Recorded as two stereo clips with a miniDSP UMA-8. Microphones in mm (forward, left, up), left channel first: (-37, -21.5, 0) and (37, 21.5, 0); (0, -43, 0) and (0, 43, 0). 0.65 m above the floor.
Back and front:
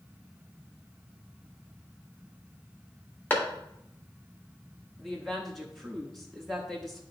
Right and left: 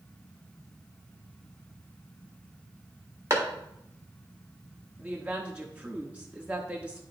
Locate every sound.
3.3 s a clap: 145° left, 1.7 m
5.0 s a woman speaking: 130° left, 1.0 m